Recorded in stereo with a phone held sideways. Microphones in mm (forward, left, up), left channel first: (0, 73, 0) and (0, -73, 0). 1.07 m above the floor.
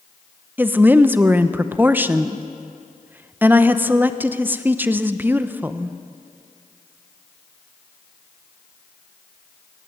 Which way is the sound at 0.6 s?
15° right (ahead or behind).